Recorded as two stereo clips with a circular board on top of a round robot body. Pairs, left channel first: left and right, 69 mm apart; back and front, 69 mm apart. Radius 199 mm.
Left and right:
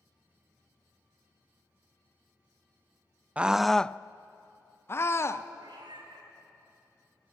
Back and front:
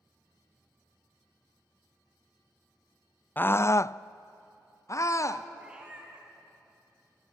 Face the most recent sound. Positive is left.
turn(degrees=-75)